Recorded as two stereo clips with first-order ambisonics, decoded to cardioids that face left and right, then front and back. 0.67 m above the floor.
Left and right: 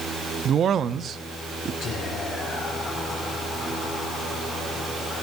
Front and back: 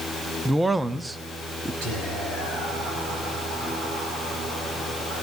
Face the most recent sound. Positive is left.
turn(degrees=150)